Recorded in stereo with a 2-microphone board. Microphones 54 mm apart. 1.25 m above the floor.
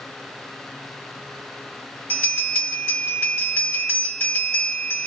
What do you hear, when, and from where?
2.1 s a bell: 40° left (ahead or behind), 1.9 m